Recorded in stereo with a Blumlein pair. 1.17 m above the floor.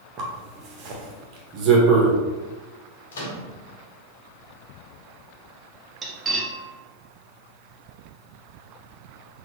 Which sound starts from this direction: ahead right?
A zipper, at 0.2 s.